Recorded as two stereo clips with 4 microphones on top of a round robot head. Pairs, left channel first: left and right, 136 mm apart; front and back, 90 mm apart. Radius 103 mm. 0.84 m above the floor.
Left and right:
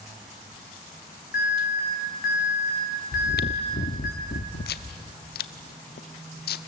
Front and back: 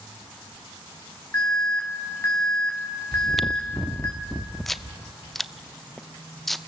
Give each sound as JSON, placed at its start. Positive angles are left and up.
{"t": 1.3, "sound": "an alarm", "azimuth_deg": 65, "distance_m": 6.0}
{"t": 3.1, "sound": "chewing", "azimuth_deg": 85, "distance_m": 0.7}